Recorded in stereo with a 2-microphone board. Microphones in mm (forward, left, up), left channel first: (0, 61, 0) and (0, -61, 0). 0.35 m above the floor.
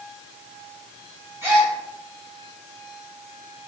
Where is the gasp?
25° right (ahead or behind), 1.9 m.